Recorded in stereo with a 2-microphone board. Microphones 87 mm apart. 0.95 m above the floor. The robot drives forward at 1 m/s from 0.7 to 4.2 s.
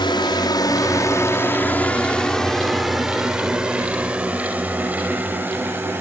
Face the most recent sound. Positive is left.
turn(degrees=-25)  # may be behind; listen again after turning